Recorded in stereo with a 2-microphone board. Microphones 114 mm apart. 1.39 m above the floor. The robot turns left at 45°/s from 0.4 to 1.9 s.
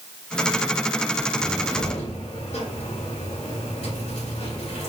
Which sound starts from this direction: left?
A cupboard door, at 1.4 s.